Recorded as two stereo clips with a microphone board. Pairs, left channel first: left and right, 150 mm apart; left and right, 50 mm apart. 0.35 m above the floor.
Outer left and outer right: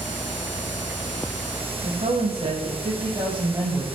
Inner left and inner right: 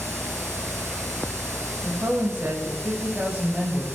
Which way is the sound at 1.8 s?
50° right (ahead or behind).